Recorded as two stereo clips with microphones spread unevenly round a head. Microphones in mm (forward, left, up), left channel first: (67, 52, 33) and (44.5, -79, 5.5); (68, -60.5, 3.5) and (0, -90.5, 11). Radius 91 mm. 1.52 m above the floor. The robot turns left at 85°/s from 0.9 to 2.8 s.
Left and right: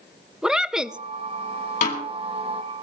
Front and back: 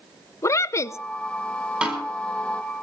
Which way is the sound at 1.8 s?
125° left.